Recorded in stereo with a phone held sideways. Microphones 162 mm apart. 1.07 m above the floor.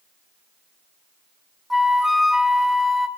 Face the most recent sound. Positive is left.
turn(degrees=0)  # may be behind; listen again after turning